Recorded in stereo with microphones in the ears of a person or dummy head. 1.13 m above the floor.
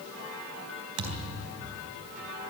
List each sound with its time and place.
1.0 s a thud: 70° right (ahead or behind), 3.5 m